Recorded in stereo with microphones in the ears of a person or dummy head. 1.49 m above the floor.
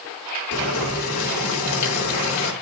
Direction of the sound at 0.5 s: 85° left.